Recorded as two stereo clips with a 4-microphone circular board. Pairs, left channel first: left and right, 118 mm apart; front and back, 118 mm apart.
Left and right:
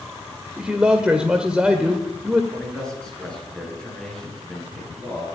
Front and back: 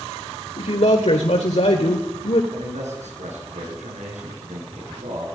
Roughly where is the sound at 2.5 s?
Behind.